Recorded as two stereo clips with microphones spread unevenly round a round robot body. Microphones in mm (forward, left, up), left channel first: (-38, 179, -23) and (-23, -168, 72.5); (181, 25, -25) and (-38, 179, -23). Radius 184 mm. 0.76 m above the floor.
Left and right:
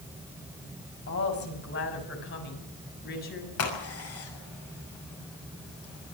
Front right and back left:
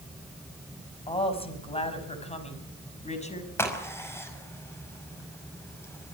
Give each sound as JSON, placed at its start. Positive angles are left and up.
{"t": 1.1, "sound": "a woman speaking", "azimuth_deg": 35, "distance_m": 5.5}
{"t": 3.6, "sound": "a crack", "azimuth_deg": 45, "distance_m": 5.5}